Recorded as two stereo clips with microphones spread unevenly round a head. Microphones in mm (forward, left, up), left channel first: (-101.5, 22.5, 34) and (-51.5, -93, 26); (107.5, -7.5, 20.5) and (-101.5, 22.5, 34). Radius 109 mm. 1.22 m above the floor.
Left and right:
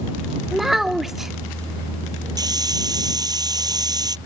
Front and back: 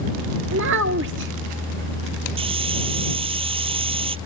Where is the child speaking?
155° right.